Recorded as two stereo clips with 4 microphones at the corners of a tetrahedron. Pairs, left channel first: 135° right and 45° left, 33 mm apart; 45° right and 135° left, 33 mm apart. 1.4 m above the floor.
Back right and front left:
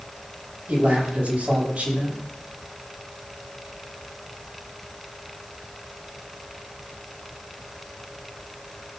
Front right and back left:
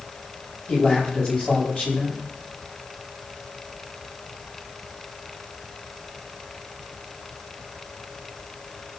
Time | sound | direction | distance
0.7 | a man speaking | straight ahead | 8 m